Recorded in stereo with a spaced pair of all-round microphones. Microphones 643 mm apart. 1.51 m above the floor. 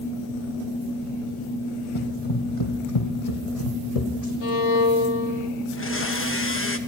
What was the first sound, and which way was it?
Running footsteps, 45° left (ahead or behind).